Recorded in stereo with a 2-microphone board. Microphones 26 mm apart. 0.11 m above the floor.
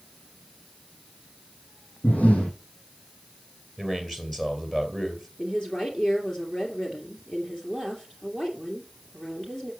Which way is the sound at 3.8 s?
10° left (ahead or behind).